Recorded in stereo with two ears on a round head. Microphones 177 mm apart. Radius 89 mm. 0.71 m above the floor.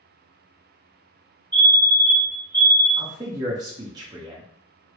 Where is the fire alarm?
20° right (ahead or behind), 1.7 m.